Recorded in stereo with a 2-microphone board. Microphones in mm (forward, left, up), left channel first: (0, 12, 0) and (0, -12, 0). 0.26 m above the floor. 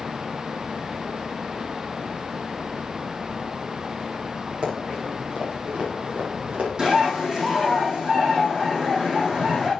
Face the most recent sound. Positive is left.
turn(degrees=-40)  # may be behind; listen again after turning